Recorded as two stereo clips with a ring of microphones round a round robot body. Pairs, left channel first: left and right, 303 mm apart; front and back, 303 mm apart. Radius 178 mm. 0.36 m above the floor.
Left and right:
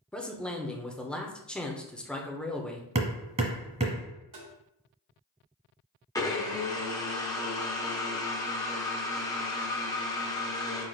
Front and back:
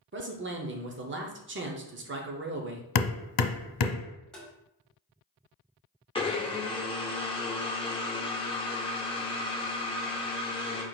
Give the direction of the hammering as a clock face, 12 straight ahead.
1 o'clock.